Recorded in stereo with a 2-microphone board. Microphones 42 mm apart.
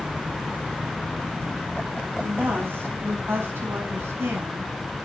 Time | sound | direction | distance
2.2 | a woman speaking | 55° right (ahead or behind) | 4.5 m